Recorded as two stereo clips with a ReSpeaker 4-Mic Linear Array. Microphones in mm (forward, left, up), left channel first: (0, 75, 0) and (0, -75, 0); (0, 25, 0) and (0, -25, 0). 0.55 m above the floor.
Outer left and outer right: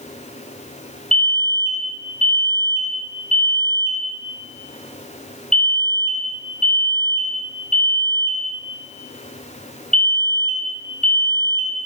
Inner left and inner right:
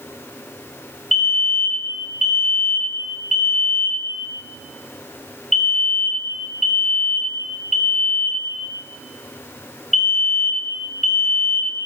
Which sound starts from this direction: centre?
A fire alarm, at 1.1 s.